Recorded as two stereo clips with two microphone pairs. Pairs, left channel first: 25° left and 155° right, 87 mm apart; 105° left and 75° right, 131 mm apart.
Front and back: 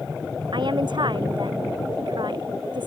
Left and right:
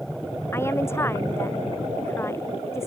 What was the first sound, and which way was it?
A woman speaking, 175° left.